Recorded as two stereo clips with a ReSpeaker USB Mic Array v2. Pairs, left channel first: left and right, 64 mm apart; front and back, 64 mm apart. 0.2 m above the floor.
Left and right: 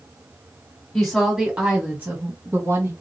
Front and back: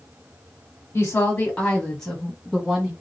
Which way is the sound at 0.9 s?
10° left.